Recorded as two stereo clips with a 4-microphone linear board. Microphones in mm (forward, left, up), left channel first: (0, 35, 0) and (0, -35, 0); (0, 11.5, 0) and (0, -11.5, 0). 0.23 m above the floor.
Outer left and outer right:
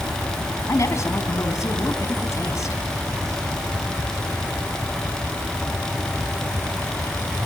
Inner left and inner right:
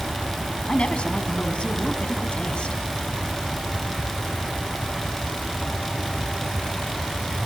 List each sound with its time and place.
0.7 s a woman speaking: 50° left (ahead or behind), 2.5 m